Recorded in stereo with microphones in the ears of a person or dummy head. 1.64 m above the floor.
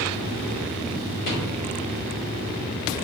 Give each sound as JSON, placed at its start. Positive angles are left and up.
{"t": 1.2, "sound": "a rattle", "side_deg": 50, "distance_m": 2.0}